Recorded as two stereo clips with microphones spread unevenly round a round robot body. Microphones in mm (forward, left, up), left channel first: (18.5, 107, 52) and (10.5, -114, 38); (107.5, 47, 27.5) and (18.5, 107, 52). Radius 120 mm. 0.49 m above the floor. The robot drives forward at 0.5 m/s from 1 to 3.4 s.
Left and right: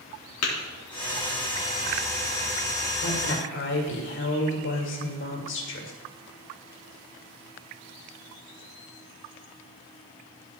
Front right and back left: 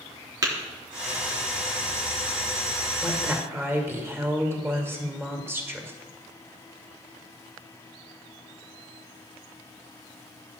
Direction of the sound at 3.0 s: 65° left.